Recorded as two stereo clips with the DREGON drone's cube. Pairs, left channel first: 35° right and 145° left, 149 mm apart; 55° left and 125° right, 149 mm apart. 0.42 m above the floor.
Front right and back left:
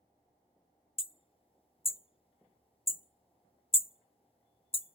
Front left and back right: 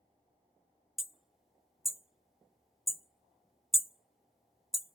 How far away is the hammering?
About 0.5 m.